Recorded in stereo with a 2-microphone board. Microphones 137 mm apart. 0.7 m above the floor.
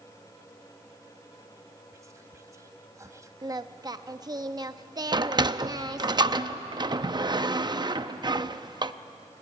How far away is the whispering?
About 0.9 m.